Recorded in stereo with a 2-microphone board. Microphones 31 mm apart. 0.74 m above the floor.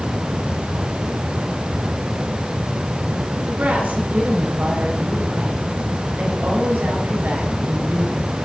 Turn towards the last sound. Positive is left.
turn(degrees=-75)  # may be behind; listen again after turning